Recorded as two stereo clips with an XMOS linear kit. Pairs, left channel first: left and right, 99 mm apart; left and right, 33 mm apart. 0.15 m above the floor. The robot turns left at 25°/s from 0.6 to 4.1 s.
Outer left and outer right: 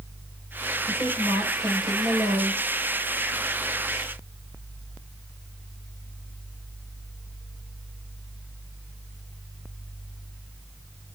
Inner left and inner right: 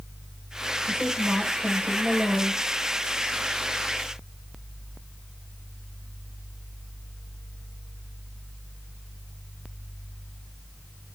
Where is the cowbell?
No cowbell in this recording.